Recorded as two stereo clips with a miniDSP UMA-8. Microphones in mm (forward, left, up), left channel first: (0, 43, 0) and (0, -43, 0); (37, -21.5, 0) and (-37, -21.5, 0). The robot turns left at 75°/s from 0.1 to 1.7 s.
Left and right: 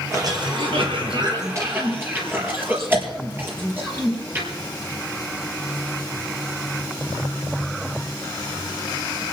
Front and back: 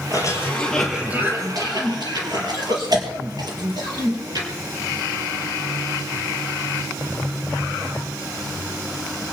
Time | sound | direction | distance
0.1 | a cough | 35° right | 5 m